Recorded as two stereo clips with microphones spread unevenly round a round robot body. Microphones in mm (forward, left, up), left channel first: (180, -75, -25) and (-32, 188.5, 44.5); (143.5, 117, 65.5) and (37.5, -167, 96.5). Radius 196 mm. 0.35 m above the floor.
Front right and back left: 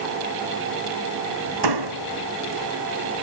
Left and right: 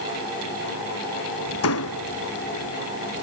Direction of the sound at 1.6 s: 120° left.